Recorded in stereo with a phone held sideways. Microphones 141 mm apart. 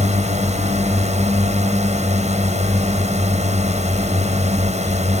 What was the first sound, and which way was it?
A drone, 55° right (ahead or behind).